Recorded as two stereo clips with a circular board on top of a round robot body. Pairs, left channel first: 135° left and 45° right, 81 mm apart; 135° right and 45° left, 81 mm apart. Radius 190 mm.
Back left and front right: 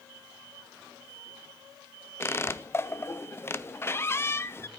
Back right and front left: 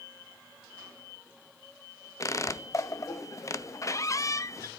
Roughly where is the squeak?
Behind.